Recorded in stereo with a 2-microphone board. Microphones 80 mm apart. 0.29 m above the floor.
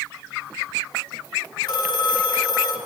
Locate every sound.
1.6 s a phone ringing: 60° left (ahead or behind), 1.9 m